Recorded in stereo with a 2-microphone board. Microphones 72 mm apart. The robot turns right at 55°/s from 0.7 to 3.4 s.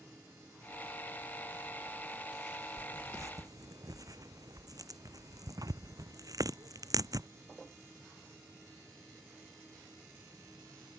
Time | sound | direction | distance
2.8 | tearing paper | 20° right (ahead or behind) | ?